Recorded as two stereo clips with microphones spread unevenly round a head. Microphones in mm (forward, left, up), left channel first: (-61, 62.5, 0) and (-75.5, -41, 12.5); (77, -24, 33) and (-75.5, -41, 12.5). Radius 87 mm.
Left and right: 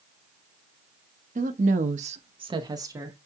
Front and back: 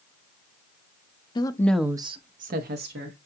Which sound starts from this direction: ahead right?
A woman speaking, at 1.4 s.